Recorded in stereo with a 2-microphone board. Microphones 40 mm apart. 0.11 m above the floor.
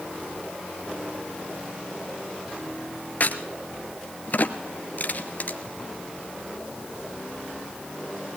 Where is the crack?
45° left (ahead or behind), 1.7 m.